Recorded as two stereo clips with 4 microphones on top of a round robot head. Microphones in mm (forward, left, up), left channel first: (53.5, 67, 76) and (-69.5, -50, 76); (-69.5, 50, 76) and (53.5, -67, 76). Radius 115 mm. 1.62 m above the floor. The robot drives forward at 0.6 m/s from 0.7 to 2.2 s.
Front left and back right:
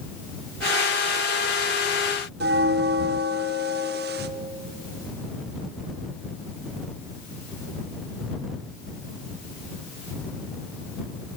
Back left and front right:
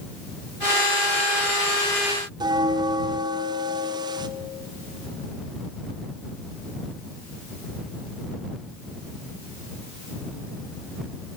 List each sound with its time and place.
2.4 s a bell: 105° right, 0.8 m